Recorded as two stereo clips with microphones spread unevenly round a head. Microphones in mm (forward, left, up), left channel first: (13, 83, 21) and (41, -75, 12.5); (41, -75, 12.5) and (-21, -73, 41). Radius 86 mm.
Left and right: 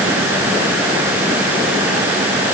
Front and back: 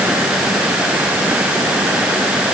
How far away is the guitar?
No guitar in this recording.